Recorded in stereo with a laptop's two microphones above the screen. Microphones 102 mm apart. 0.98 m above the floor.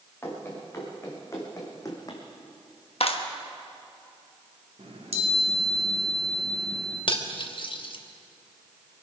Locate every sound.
0.2 s running footsteps: 20° left (ahead or behind), 5.5 m; by 2.2 s 35° left (ahead or behind), 3 m
3.0 s a clap: 65° left (ahead or behind), 1.1 m
4.8 s a chime: 70° right (ahead or behind), 3 m
7.1 s cutlery clinking: 50° left (ahead or behind), 1.0 m